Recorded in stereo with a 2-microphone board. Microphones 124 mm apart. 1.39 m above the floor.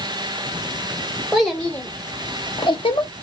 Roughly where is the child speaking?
Centre.